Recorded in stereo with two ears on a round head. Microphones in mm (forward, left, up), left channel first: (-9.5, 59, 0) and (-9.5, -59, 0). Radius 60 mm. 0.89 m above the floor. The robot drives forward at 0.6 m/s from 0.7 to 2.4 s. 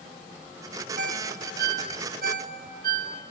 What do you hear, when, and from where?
1.0 s a ringtone: 60° right (ahead or behind), 1.3 m; by 3.1 s 75° right (ahead or behind), 1.2 m